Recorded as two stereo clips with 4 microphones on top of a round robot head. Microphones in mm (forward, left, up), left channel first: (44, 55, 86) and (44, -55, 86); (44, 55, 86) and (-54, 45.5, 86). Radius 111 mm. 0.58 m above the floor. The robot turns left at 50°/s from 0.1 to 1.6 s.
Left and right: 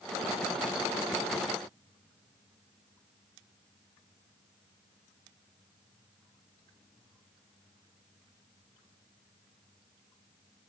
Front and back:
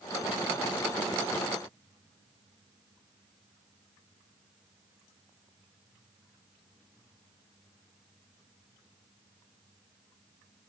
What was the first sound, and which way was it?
Only background noise.